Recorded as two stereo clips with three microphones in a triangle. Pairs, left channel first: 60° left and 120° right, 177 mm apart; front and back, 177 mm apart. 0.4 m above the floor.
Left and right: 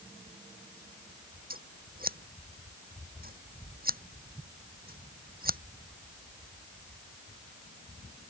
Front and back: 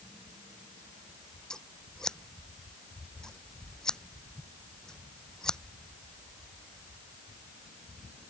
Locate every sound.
1.5 s scissors: 85° right